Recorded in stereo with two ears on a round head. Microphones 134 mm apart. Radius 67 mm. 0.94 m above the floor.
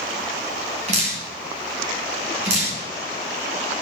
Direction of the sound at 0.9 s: 50° right (ahead or behind).